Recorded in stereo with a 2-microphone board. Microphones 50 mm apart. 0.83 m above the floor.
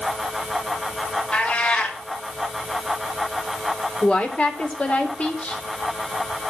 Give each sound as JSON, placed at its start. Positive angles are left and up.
{"t": 1.3, "sound": "a cat meowing", "side_deg": 20, "distance_m": 2.0}
{"t": 4.0, "sound": "a woman speaking", "side_deg": 30, "distance_m": 2.5}